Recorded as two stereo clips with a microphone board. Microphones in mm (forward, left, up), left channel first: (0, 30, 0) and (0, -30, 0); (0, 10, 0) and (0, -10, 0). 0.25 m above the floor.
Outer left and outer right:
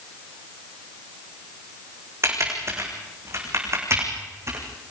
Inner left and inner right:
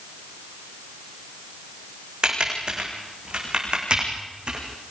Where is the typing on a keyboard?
50° right (ahead or behind), 5.5 m.